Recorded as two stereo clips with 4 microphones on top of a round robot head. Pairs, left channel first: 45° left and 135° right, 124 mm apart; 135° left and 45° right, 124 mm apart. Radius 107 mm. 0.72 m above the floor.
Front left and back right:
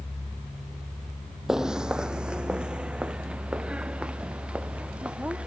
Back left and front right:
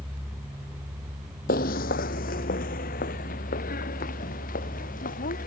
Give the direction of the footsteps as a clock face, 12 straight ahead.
7 o'clock.